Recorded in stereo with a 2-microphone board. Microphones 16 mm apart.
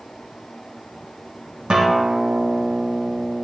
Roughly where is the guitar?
Right.